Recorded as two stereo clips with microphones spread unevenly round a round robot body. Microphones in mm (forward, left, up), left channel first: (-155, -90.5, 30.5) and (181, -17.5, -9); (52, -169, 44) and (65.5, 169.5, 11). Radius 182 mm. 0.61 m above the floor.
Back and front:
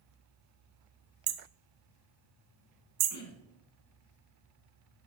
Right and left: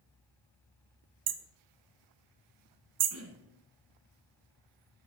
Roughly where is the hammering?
Ahead left.